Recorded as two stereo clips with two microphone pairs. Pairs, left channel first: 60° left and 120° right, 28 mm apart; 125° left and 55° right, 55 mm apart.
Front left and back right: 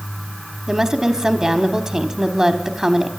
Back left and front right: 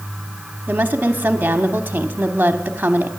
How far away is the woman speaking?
About 0.9 m.